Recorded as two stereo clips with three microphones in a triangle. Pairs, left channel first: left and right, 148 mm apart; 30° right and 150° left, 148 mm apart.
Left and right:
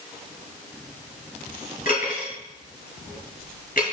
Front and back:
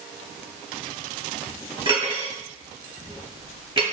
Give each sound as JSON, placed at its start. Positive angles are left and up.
{"t": 1.9, "sound": "cutlery clinking", "azimuth_deg": 100, "distance_m": 1.9}